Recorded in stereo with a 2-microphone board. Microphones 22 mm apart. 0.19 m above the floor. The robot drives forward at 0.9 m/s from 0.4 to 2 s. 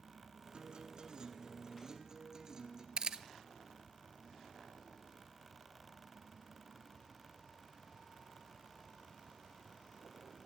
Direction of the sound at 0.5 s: 50° right (ahead or behind).